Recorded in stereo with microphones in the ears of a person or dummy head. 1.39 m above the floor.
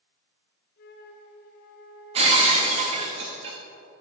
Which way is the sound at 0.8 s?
60° left (ahead or behind).